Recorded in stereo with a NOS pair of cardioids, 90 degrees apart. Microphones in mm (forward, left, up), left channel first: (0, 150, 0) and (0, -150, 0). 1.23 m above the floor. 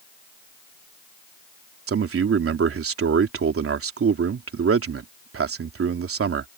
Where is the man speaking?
50° right.